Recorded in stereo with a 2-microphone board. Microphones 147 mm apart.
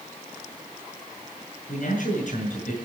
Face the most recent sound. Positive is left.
turn(degrees=65)  # may be behind; listen again after turning